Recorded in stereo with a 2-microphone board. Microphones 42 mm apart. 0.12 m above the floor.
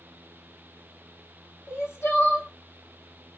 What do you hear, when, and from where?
1.7 s crying: 65° left (ahead or behind), 2.5 m